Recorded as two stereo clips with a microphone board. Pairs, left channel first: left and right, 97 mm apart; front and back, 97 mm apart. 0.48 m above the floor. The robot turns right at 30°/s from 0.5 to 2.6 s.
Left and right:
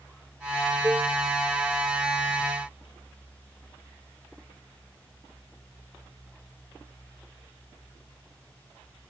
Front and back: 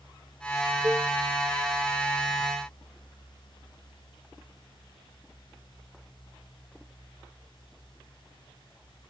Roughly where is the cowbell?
Behind right.